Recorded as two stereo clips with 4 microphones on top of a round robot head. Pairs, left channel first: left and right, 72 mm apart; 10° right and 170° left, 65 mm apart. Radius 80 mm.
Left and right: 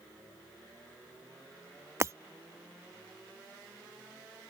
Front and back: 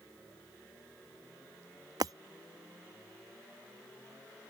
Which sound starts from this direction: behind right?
Breaking glass, at 2.0 s.